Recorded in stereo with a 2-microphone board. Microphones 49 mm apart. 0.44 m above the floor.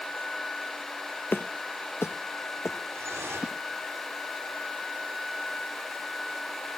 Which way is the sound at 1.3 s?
50° left (ahead or behind).